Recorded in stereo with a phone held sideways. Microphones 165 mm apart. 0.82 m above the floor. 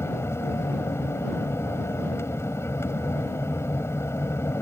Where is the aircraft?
15° left (ahead or behind).